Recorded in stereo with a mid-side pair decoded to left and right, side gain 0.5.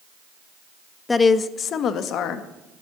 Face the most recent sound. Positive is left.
turn(degrees=75)